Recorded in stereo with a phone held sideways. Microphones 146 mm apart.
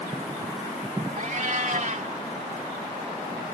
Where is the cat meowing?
60° right (ahead or behind).